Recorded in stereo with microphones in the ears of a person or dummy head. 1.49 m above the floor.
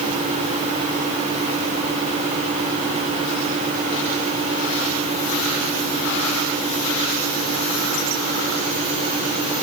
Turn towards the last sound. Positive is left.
No sound to turn to.